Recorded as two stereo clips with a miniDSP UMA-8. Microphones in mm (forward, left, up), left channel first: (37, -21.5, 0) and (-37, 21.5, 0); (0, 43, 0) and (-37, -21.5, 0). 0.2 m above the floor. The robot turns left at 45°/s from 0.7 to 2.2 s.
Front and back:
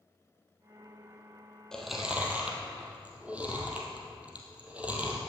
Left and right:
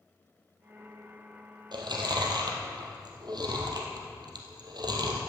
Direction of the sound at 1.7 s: 115° right.